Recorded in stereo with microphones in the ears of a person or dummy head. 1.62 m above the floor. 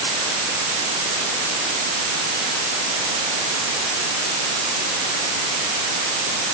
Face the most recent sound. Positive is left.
No sound to turn to.